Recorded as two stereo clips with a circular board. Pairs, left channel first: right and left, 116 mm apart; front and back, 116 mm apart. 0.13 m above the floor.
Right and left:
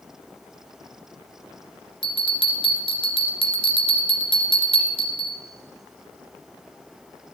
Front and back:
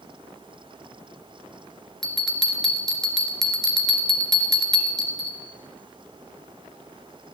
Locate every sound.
2.0 s a bell: 85° right, 2 m